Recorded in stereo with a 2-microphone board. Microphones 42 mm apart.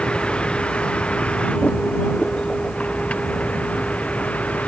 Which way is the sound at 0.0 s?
25° left (ahead or behind).